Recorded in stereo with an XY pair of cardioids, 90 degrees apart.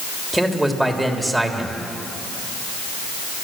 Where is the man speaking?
5° right, 3 m.